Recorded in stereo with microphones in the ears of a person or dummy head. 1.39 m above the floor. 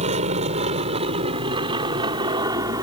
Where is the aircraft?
35° right (ahead or behind); by 2.8 s 15° right (ahead or behind).